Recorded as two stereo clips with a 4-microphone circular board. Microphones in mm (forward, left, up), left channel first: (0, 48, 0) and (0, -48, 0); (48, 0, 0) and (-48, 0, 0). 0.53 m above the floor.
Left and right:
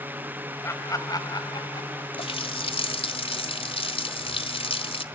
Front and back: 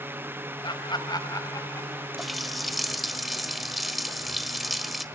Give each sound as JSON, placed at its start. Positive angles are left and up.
{"t": 0.6, "sound": "laughter", "azimuth_deg": 30, "distance_m": 2.5}
{"t": 2.2, "sound": "a running tap", "azimuth_deg": 90, "distance_m": 1.5}